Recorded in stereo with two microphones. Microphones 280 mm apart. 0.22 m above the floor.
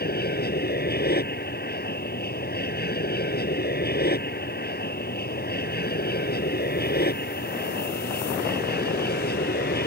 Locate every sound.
0.0 s an aircraft: 35° left (ahead or behind)